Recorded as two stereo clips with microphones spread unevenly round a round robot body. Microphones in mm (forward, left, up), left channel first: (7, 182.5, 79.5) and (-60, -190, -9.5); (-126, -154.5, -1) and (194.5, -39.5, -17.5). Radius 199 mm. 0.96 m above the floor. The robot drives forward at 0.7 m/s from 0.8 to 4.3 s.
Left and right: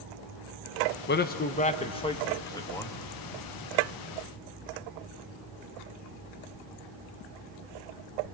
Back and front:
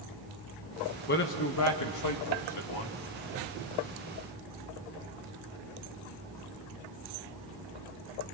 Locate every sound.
1.1 s a man speaking: 145° left, 1.1 m; by 3.0 s 170° left, 2 m